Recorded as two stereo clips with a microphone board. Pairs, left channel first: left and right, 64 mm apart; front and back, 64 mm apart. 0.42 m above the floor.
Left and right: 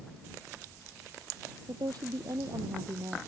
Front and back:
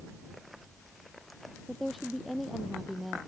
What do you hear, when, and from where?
1.7 s a woman speaking: 90° right